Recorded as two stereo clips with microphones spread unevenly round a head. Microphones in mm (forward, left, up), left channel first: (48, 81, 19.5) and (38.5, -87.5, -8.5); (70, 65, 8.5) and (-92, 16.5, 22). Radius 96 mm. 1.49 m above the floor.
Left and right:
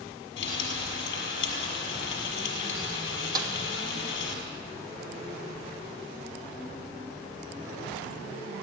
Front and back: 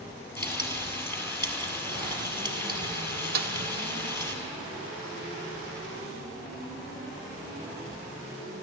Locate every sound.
0.4 s frying: 95° left, 6 m
3.4 s a snare drum: 165° right, 1.6 m